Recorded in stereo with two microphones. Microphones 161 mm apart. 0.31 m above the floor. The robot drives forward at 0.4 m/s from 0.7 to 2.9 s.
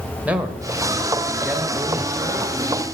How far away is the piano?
No piano in this recording.